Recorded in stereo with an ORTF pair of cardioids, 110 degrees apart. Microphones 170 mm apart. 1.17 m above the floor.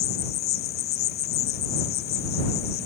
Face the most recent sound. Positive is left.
turn(degrees=70)